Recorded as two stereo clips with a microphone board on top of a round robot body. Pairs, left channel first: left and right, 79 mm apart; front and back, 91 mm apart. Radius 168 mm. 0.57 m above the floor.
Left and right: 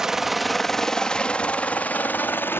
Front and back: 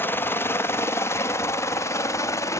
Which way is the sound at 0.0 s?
15° right.